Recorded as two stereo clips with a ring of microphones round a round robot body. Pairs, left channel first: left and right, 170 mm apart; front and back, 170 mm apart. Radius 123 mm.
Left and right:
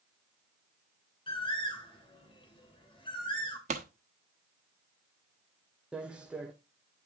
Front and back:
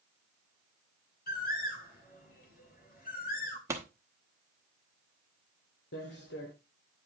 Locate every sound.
1.3 s a bird: 30° left, 3 m
3.7 s a pop: 115° right, 1.0 m
5.9 s footsteps: 5° right, 1.4 m